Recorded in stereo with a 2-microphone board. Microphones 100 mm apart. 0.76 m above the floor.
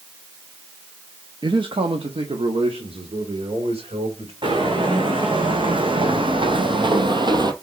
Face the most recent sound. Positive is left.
turn(degrees=-45)  # may be behind; listen again after turning